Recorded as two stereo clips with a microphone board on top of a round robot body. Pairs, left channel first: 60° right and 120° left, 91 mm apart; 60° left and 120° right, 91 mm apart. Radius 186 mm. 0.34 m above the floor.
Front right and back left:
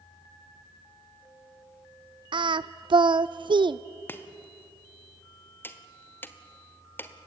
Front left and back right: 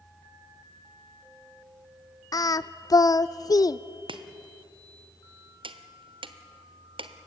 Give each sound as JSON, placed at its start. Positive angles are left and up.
{"t": 2.3, "sound": "singing", "azimuth_deg": 105, "distance_m": 0.6}
{"t": 4.1, "sound": "chopping", "azimuth_deg": -125, "distance_m": 1.4}